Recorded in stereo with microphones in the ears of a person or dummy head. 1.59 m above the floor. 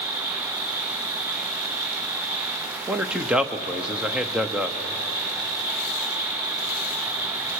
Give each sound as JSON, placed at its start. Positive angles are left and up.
{"t": 0.0, "sound": "an insect", "side_deg": -50, "distance_m": 6.5}
{"t": 2.9, "sound": "a man speaking", "side_deg": -5, "distance_m": 0.8}